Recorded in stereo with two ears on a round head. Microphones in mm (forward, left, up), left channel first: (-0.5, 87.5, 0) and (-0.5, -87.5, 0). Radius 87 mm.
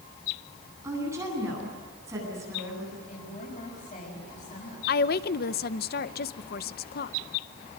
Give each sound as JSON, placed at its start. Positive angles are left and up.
{"t": 0.8, "sound": "a woman speaking", "side_deg": -15, "distance_m": 10.0}
{"t": 3.1, "sound": "a woman speaking", "side_deg": 40, "distance_m": 6.5}
{"t": 4.9, "sound": "a woman speaking", "side_deg": 50, "distance_m": 0.7}